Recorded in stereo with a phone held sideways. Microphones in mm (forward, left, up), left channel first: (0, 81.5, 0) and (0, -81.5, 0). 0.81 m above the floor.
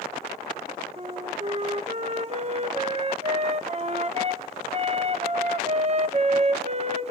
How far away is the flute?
About 1.0 m.